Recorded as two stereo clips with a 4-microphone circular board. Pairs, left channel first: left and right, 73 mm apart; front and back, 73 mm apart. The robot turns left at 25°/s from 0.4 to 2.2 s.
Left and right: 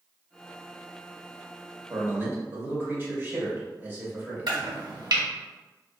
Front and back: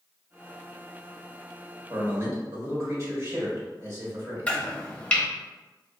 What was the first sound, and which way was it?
A man speaking, 135° right.